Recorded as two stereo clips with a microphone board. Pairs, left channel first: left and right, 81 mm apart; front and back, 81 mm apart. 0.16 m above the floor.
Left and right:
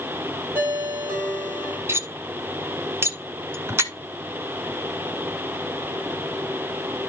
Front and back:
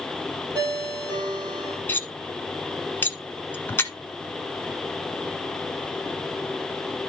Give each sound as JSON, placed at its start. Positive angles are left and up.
{"t": 0.6, "sound": "a ringtone", "azimuth_deg": -155, "distance_m": 3.0}
{"t": 1.9, "sound": "cutlery clinking", "azimuth_deg": -50, "distance_m": 0.9}